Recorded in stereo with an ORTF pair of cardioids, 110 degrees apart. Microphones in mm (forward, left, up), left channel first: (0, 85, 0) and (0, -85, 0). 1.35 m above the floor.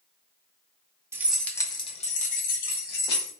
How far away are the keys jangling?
About 0.7 m.